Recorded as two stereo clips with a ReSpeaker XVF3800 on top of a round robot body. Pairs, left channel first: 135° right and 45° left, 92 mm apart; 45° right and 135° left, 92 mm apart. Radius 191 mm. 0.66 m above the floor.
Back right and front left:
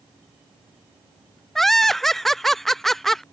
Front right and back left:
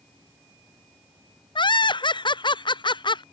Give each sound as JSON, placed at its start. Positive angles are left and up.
{"t": 1.6, "sound": "laughter", "azimuth_deg": -50}